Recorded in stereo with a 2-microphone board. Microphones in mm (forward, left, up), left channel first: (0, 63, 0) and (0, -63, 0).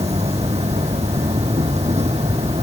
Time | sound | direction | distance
0.0 | an insect | 60° right (ahead or behind) | ?